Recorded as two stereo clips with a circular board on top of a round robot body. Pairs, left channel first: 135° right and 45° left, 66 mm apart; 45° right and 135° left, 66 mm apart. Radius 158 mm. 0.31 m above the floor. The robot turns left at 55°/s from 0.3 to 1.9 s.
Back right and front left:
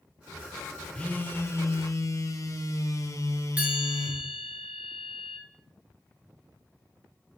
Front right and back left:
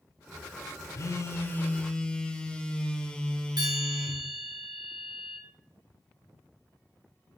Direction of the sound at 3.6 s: 115° left.